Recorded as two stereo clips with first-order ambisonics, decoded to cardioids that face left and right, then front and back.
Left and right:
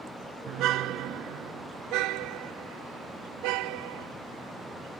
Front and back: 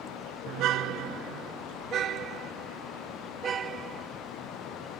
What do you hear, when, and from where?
0.5 s a car horn: 135° right; by 4.1 s 115° right